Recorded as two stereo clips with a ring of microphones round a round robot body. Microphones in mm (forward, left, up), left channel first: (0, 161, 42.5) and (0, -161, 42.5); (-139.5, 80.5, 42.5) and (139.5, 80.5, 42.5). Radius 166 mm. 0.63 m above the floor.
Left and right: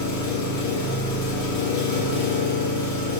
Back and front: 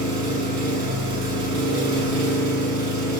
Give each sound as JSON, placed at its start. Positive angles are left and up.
{"t": 0.0, "sound": "an engine running", "azimuth_deg": 35, "distance_m": 1.7}